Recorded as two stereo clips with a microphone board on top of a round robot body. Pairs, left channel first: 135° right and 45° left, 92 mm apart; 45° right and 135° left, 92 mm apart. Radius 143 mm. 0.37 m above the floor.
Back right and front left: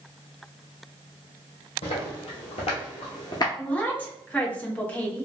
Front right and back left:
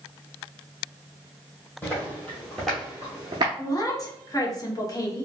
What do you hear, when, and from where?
1.8 s footsteps: 115° right, 1.2 m; by 3.5 s 170° left, 0.5 m
3.6 s a woman speaking: 70° right, 1.1 m